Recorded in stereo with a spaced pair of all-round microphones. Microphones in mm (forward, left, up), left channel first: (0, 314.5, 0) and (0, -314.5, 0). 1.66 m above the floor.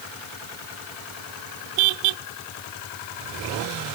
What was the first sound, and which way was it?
Only background noise.